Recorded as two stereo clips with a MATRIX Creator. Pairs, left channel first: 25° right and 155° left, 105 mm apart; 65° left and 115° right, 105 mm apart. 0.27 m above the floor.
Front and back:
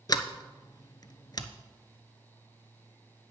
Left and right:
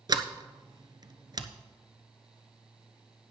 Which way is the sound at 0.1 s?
70° right.